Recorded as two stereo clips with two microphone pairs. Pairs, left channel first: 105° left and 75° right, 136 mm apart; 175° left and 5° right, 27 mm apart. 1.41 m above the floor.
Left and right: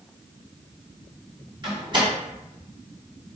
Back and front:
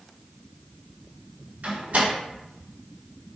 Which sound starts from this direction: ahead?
A door slam, at 1.6 s.